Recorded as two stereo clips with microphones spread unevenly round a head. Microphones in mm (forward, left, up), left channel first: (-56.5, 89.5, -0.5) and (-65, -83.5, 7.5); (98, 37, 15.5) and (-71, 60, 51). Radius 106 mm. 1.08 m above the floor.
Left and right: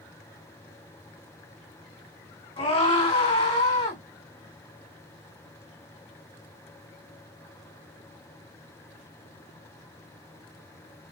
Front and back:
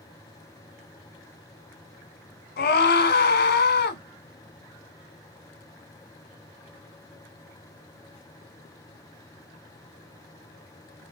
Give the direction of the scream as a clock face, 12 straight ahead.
11 o'clock.